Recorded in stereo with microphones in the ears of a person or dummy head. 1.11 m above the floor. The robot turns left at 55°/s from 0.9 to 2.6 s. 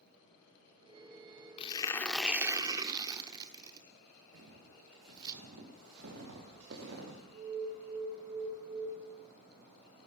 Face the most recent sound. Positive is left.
turn(degrees=-55)  # may be behind; listen again after turning